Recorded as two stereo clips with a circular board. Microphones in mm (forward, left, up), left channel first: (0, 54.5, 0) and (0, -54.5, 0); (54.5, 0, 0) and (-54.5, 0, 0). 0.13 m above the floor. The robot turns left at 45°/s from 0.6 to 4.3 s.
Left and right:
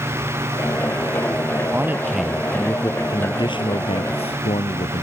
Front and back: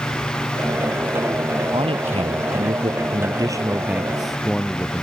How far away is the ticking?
No ticking in this recording.